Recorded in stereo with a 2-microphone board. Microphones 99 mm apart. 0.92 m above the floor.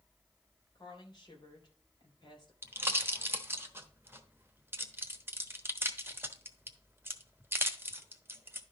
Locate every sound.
0.8 s a woman speaking: 45° left (ahead or behind), 3 m
2.6 s a pop: 25° right (ahead or behind), 1.0 m